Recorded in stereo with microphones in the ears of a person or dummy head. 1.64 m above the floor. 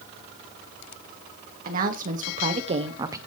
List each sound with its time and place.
1.6 s a woman speaking: 50° right (ahead or behind), 1.4 m; by 3.2 s 15° right (ahead or behind), 0.6 m